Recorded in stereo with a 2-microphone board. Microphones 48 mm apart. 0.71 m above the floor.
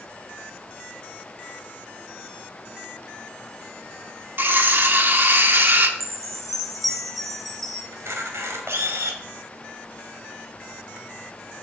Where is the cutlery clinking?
45° right (ahead or behind), 0.9 m.